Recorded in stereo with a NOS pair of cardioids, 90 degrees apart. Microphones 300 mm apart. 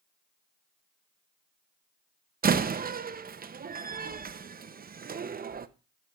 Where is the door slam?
30° right, 0.7 m.